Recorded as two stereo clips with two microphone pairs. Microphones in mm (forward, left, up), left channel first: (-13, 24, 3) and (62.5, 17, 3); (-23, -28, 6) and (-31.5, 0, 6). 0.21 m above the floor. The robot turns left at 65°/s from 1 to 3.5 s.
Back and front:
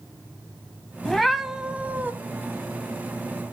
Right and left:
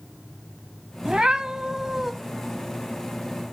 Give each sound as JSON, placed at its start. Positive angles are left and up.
{"t": 1.1, "sound": "a cat meowing", "azimuth_deg": 95, "distance_m": 0.7}